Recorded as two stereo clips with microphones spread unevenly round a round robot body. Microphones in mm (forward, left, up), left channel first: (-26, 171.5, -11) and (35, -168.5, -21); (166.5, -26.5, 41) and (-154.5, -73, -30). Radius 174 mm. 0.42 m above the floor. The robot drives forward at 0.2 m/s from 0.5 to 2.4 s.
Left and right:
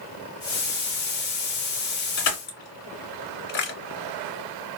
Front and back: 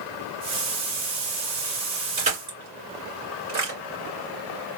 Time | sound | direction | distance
2.2 | crushing | 115° left | 2.0 m